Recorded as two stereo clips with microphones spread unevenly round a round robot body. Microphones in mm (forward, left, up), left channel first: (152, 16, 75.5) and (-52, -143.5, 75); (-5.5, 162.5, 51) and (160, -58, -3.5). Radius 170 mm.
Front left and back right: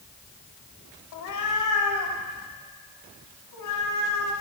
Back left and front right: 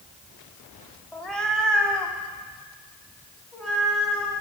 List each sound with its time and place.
1.1 s a cat meowing: 35° left, 0.9 m; by 4.3 s 40° left, 2.5 m